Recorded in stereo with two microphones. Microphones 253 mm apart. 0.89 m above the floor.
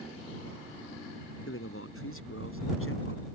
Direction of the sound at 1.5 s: 60° left (ahead or behind).